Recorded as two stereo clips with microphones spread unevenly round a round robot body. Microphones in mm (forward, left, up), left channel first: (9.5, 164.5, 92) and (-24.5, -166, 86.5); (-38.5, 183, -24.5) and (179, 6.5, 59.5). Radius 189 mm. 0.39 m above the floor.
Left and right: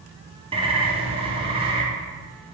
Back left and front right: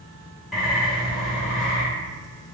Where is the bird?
155° right, 0.7 m.